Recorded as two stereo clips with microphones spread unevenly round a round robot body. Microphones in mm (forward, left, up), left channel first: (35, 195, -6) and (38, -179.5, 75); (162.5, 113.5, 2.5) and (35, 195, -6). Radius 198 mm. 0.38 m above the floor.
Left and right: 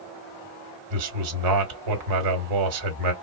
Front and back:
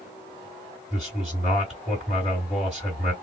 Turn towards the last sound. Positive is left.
turn(degrees=-125)